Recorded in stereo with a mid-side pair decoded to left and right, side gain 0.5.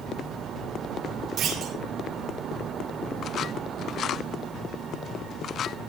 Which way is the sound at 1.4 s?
60° right.